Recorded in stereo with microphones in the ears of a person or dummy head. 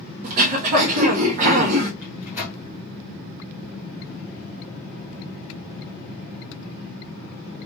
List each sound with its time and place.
0.2 s throat clearing: 45° right (ahead or behind), 1.2 m
2.0 s a microwave: 5° right (ahead or behind), 0.8 m